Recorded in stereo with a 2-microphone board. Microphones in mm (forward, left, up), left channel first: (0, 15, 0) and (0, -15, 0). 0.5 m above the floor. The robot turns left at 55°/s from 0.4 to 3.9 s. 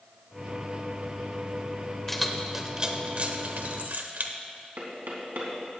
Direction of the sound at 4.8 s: 70° right (ahead or behind).